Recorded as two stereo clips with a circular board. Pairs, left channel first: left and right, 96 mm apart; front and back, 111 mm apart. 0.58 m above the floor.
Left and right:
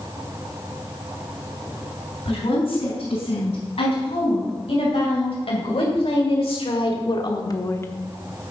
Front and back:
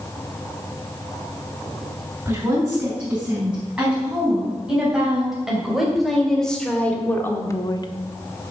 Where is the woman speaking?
105° left, 5.5 m; by 7.9 s 30° left, 1.0 m.